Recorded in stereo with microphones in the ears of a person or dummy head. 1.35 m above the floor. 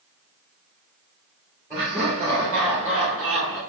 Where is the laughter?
15° right (ahead or behind), 2 m; by 3.6 s 45° right (ahead or behind), 2.5 m.